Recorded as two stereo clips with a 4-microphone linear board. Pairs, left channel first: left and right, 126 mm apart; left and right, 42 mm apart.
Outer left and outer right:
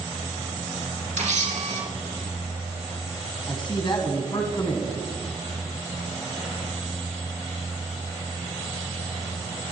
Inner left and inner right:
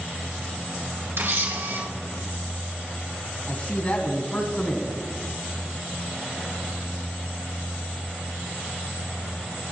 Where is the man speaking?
40° left (ahead or behind), 1.6 m.